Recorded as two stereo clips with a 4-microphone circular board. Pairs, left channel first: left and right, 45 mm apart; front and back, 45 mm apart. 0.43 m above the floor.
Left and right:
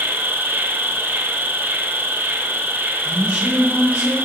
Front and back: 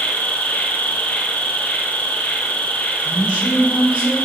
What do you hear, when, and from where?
0.0 s an insect: 55° right, 1.2 m
3.0 s a woman speaking: 145° right, 1.5 m